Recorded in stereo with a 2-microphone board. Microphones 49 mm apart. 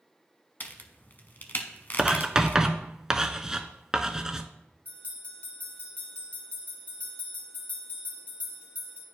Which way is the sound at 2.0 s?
15° right (ahead or behind).